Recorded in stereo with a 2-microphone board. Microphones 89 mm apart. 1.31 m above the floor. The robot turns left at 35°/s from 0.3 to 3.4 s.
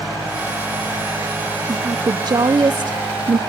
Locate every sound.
1.7 s a woman speaking: 45° right, 0.6 m; by 3.4 s 105° right, 0.6 m